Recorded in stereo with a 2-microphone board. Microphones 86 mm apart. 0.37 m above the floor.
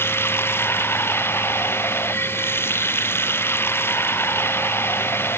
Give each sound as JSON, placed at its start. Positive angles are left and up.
{"t": 0.0, "sound": "running water", "side_deg": 25}